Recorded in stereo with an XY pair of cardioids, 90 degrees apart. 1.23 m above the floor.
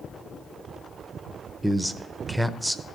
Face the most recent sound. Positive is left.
turn(degrees=-5)